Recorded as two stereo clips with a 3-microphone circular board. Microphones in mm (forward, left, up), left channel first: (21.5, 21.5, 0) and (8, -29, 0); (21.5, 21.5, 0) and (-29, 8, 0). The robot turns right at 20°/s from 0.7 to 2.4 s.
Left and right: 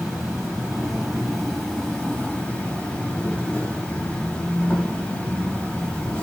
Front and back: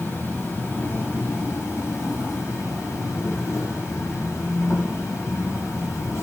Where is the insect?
30° right, 4.5 m; by 6.2 s 5° left, 4.5 m.